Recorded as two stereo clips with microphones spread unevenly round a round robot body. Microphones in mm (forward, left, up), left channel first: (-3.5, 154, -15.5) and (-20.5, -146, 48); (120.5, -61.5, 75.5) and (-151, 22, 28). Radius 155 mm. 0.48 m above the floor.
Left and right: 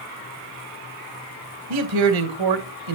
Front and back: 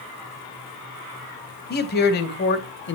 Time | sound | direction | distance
1.7 | a man speaking | 75° right | 3 m